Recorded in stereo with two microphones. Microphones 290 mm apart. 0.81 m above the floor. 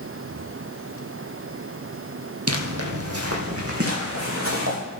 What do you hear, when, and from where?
2.5 s footsteps: 55° right (ahead or behind), 1.6 m; by 4.8 s 50° right (ahead or behind), 4.5 m